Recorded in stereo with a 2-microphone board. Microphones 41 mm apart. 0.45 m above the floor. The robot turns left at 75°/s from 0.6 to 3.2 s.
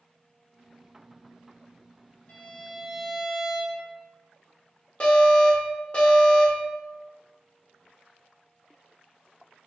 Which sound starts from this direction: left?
An alarm, at 5.0 s.